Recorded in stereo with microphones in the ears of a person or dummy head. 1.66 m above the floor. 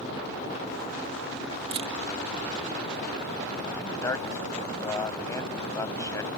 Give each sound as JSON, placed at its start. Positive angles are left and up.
{"t": 1.7, "sound": "a camera shutter", "side_deg": -35}
{"t": 3.8, "sound": "a man speaking", "side_deg": 15}